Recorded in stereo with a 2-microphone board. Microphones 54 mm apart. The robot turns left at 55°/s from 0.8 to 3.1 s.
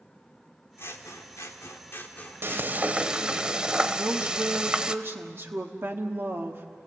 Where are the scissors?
115° left, 1.7 m; by 3.4 s 10° right, 1.7 m.